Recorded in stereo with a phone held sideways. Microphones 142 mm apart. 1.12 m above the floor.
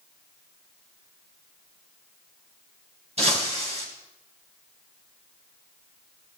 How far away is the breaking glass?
About 5 m.